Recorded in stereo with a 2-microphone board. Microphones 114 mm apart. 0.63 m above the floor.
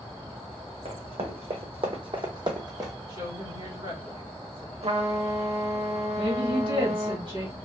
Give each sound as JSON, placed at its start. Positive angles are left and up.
{"t": 0.8, "sound": "running footsteps", "side_deg": -60, "distance_m": 1.3}
{"t": 3.1, "sound": "a woman speaking", "side_deg": -40, "distance_m": 1.6}
{"t": 4.8, "sound": "a trumpet", "side_deg": -70, "distance_m": 0.6}
{"t": 6.2, "sound": "a woman speaking", "side_deg": -50, "distance_m": 1.5}